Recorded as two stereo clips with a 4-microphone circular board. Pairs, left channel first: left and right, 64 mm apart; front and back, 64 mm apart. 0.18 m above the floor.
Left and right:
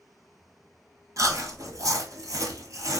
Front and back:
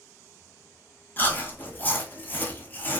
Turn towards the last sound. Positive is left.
turn(degrees=-60)